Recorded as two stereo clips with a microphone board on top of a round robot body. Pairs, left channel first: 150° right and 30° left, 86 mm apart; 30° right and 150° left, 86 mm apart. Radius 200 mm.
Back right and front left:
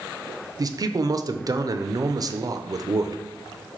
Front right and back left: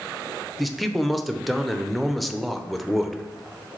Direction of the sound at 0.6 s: 60° left.